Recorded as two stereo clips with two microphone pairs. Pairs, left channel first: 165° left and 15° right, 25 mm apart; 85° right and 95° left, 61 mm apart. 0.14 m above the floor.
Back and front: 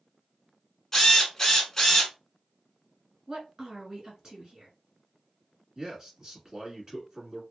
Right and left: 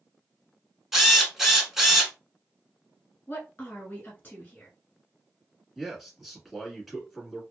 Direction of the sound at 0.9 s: 170° left.